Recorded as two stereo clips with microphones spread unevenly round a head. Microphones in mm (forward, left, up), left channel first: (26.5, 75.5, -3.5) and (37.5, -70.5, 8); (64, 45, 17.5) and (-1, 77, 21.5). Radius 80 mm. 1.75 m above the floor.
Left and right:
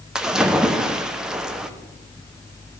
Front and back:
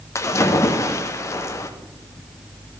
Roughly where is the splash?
Ahead.